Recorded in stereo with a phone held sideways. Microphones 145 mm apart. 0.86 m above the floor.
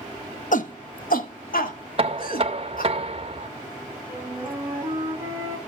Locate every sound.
0.5 s a shout: 65° left (ahead or behind), 1.0 m; by 2.9 s 80° left, 3 m
2.0 s knocking: 40° right (ahead or behind), 0.9 m
4.1 s a flute: 15° right (ahead or behind), 3.5 m